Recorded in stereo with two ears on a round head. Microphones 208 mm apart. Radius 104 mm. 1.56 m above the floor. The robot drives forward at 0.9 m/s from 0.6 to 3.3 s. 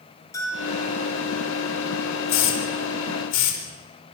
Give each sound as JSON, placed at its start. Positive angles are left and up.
{"t": 0.3, "sound": "a bell", "side_deg": 15, "distance_m": 6.5}
{"t": 2.3, "sound": "a hiss", "side_deg": 85, "distance_m": 4.5}